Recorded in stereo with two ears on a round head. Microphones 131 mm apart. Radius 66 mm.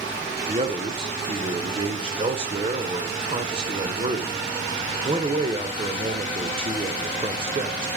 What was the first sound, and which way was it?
A man speaking, 40° right (ahead or behind).